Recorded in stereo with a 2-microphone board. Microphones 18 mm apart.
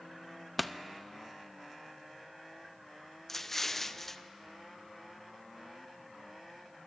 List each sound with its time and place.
0.6 s a pop: centre (ahead or behind), 0.7 m
3.3 s an explosion: 20° left (ahead or behind), 0.7 m